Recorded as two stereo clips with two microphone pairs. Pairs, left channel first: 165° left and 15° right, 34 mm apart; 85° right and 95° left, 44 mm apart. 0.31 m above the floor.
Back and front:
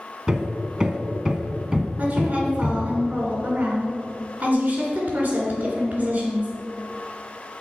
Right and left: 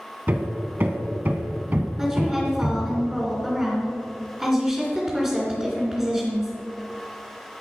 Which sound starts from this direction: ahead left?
Hammering, at 0.3 s.